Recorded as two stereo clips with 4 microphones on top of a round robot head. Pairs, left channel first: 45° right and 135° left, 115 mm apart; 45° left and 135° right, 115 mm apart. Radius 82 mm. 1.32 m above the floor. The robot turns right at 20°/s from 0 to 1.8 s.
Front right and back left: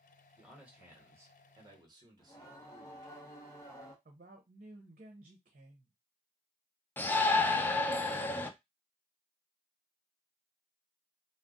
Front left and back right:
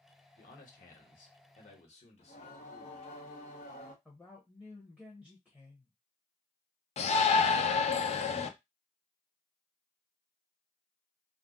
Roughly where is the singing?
Ahead.